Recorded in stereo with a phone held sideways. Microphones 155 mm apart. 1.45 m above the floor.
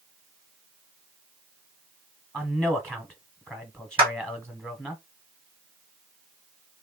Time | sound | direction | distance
2.3 | a man speaking | 5° left (ahead or behind) | 0.9 m
4.0 | a clap | 30° right (ahead or behind) | 2 m